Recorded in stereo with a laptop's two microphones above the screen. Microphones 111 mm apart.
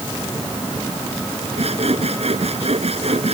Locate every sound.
1.6 s sawing: 65° right (ahead or behind)